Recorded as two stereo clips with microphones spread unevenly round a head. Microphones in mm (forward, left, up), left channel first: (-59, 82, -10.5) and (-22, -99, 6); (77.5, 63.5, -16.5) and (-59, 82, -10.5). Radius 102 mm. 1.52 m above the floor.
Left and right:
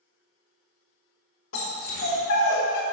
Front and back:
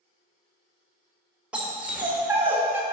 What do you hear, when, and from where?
1.5 s a dog barking: 90° left, 2.5 m; by 2.8 s 105° left, 1.9 m